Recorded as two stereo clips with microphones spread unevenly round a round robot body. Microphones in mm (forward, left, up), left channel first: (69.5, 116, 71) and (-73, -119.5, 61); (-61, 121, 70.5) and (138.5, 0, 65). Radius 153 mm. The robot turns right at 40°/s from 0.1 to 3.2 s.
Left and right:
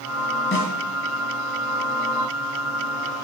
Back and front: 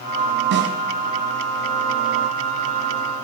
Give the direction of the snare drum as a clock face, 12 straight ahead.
12 o'clock.